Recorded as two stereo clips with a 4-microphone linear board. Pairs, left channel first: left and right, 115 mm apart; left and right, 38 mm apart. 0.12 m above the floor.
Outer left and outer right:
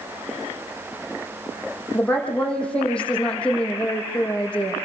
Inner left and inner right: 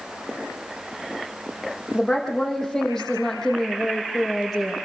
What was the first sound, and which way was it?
A woman speaking, 10° left (ahead or behind).